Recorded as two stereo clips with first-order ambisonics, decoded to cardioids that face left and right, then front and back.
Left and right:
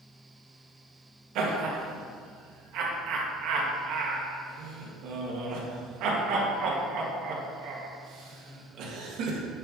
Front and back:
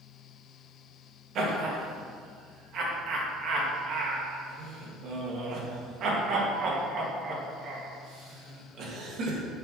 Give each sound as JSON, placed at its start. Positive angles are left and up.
{"t": 1.4, "sound": "laughter", "azimuth_deg": -130, "distance_m": 2.0}